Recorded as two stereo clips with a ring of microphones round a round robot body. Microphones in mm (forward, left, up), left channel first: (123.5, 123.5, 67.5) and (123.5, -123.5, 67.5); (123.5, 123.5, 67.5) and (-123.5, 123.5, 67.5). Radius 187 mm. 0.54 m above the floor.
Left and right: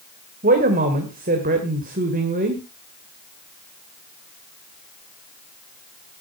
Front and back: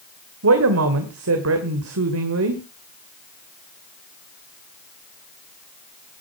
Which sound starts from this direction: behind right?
A man speaking, at 0.4 s.